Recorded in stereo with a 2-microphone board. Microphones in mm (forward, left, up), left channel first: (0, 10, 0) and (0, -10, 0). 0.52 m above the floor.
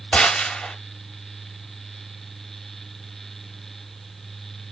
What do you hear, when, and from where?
0.1 s a gunshot: 80° left, 0.7 m